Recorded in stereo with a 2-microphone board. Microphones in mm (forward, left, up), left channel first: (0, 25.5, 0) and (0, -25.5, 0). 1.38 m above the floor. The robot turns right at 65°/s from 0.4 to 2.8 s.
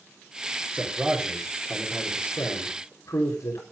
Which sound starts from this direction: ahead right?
A man speaking, at 0.7 s.